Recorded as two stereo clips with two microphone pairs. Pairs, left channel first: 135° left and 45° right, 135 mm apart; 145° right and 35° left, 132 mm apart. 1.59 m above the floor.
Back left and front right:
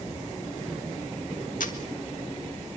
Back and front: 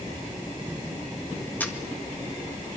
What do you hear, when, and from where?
1.6 s a camera shutter: 140° left, 1.9 m